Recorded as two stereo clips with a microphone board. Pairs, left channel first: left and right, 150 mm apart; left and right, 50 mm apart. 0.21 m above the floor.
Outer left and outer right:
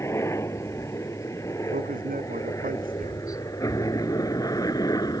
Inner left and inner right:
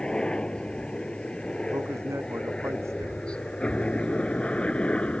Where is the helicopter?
15° left (ahead or behind); by 5.2 s 25° left (ahead or behind).